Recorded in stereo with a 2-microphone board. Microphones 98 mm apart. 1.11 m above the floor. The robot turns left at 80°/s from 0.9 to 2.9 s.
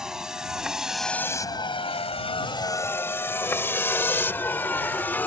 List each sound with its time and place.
0.0 s a vehicle: 5° right (ahead or behind); by 5.3 s 20° left (ahead or behind)